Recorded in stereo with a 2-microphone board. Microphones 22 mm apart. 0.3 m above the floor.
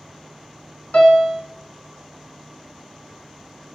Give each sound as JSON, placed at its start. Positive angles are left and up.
{"t": 0.9, "sound": "a piano", "side_deg": 70, "distance_m": 0.8}